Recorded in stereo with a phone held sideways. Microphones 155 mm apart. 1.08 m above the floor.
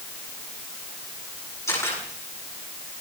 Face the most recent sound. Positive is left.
turn(degrees=20)  # may be behind; listen again after turning